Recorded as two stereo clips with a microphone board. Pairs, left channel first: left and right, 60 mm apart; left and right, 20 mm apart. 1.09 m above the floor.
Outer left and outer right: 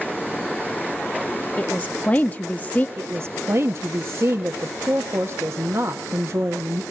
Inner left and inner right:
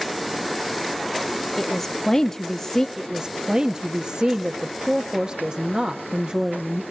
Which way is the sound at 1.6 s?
25° left (ahead or behind).